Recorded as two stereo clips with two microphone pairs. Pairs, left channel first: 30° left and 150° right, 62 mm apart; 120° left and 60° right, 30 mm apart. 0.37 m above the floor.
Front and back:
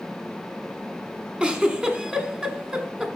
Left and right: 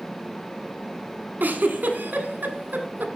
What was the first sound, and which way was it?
A giggle, 70° right.